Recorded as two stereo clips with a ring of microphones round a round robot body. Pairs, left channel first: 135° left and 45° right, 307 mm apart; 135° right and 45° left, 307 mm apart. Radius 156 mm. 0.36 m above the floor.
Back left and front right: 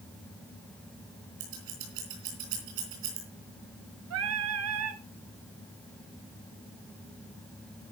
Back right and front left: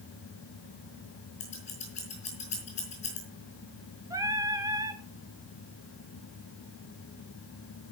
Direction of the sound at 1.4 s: 65° right.